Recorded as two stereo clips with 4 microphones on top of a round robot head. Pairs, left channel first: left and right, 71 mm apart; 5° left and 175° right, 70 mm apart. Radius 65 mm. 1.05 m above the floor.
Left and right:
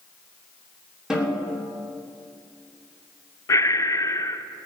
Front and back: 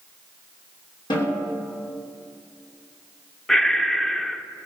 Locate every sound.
1.1 s a snare drum: 5° right, 3 m
3.5 s breathing: 85° left, 0.7 m